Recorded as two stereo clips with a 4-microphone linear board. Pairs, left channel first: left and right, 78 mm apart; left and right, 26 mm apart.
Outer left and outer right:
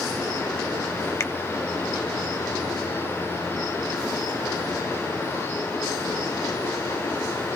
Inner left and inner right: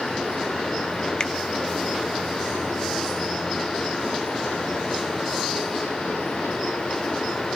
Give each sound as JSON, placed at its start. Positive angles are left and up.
{"t": 1.2, "sound": "a finger snap", "side_deg": 35, "distance_m": 0.8}